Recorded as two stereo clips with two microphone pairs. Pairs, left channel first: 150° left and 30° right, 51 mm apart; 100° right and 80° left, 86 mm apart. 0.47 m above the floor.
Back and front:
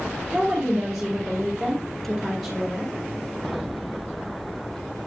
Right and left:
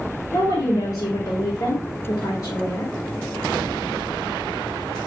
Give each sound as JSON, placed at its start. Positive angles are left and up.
{"t": 0.3, "sound": "a woman speaking", "azimuth_deg": -115, "distance_m": 2.0}